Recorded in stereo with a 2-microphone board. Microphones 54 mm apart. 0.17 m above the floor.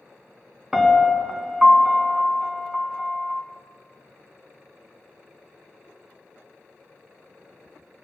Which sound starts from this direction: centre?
A piano, at 0.7 s.